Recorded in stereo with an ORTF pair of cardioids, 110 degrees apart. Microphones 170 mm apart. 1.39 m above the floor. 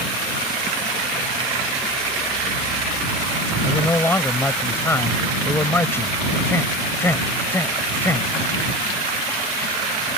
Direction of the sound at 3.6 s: 15° left.